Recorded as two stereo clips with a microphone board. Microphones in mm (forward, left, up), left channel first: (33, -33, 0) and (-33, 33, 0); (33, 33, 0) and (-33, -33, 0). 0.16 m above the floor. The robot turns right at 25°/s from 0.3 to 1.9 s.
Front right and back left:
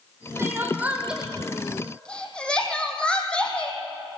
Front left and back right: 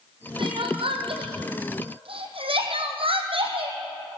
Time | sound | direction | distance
0.4 | crying | 160° right | 2.5 m